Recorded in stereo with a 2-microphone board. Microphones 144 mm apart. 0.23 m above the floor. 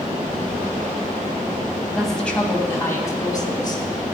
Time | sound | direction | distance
1.9 | a woman speaking | centre (ahead or behind) | 1.5 m